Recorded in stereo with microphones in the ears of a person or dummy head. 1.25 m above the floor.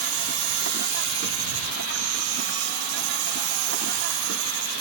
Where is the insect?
60° right (ahead or behind).